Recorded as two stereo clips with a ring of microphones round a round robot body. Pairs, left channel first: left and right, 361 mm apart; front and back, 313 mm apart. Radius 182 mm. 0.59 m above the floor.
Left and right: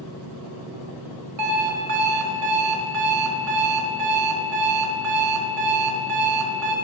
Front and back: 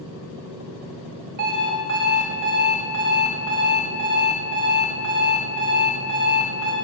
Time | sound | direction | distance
1.4 | an alarm clock | 135° right | 1.1 m